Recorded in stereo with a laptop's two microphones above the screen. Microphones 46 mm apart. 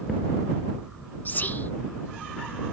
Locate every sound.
1.2 s whispering: 40° left (ahead or behind)